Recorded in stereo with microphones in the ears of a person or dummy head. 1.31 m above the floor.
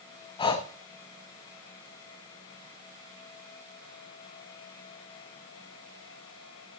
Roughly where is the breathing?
Left.